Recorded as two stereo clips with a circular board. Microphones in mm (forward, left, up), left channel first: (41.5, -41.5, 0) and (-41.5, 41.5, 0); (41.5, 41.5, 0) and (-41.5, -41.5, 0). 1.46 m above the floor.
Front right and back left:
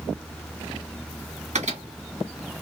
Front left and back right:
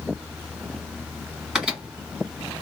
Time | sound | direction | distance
1.6 | a microwave | 140° left | 1.5 m